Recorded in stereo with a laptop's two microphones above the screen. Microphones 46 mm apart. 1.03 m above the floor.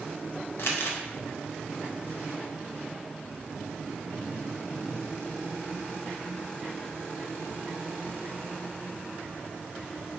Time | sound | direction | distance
0.6 | crumpling | 60° left (ahead or behind) | 0.5 m